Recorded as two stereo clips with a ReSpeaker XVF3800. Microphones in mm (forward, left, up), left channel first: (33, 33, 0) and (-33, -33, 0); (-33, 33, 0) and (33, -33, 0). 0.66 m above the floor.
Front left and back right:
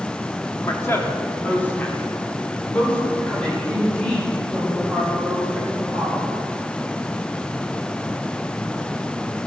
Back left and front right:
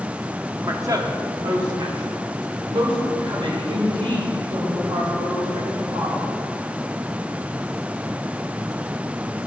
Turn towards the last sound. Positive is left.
turn(degrees=-40)